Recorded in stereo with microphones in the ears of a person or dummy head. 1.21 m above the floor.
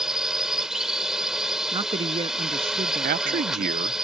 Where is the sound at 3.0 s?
45° right (ahead or behind).